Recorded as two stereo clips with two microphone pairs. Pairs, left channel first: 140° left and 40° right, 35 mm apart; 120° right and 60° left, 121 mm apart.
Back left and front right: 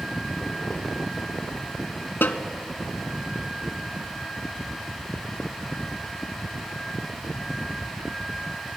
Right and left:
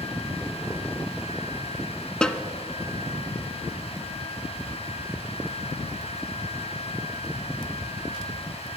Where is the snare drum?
155° left, 0.6 m.